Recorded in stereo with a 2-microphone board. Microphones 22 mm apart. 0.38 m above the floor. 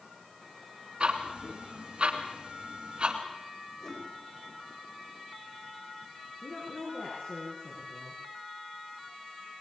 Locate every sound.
1.0 s ticking: 45° right (ahead or behind), 2 m
3.8 s a whoosh: 30° left (ahead or behind), 9.5 m
6.4 s a woman speaking: 50° left (ahead or behind), 5.5 m